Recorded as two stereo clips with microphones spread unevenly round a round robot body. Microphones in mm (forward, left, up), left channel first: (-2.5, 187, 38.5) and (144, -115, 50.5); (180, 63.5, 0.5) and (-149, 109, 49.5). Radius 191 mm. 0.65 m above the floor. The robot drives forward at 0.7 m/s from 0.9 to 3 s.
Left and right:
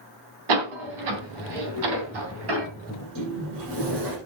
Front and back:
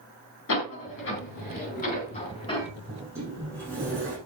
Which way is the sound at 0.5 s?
65° right.